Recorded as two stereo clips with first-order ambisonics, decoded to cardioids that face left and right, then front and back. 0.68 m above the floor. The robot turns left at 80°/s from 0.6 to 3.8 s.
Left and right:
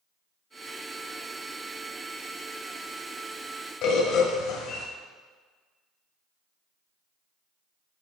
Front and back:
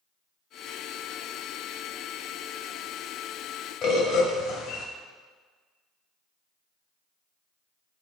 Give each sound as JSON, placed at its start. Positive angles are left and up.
{"t": 3.8, "sound": "a bird", "azimuth_deg": 55, "distance_m": 1.5}